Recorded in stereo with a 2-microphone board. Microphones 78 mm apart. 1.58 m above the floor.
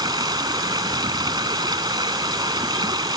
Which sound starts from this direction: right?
Running water, at 0.0 s.